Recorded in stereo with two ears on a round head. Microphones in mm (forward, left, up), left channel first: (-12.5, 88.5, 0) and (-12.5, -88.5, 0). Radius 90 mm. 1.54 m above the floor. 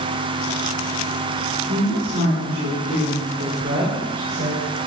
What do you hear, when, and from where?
1.7 s a woman speaking: 75° right (ahead or behind), 5 m; by 4.6 s 55° right (ahead or behind), 6.5 m